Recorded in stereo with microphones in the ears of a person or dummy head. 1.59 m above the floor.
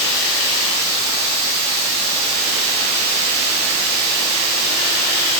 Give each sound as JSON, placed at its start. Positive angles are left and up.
{"t": 0.0, "sound": "running water", "side_deg": -15, "distance_m": 2.0}